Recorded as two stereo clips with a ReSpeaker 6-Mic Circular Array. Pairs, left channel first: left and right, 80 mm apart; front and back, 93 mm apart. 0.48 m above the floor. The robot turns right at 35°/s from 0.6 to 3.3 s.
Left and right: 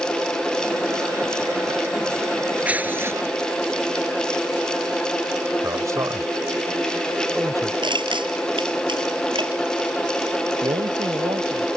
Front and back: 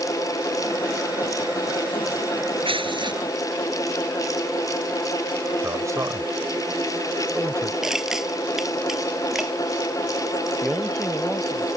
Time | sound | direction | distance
2.6 | tearing paper | 165° right | ?
5.6 | a man speaking | 130° right | ?
7.8 | crushing | 95° right | ?
10.6 | a man speaking | 100° right | ?